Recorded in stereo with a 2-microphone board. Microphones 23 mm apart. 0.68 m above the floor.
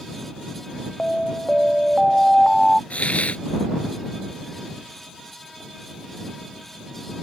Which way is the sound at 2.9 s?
70° left (ahead or behind).